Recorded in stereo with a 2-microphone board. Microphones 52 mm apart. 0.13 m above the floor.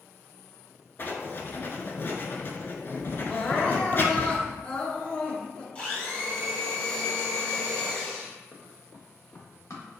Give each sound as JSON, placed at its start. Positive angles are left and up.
{"t": 1.0, "sound": "writing", "side_deg": 40, "distance_m": 0.6}
{"t": 3.3, "sound": "crying", "side_deg": 20, "distance_m": 0.8}
{"t": 5.8, "sound": "a blender", "side_deg": 25, "distance_m": 1.9}
{"t": 8.5, "sound": "running footsteps", "side_deg": 50, "distance_m": 0.9}